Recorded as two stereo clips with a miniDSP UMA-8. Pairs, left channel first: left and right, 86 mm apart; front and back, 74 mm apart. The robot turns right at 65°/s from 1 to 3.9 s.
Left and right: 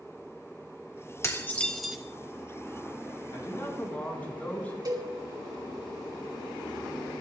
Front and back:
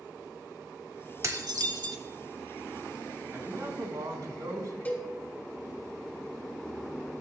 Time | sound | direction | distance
1.2 | dishes clattering | 140° left | 1.3 m
3.3 | a man speaking | 120° left | 3.5 m
4.8 | a cowbell | 65° right | 3 m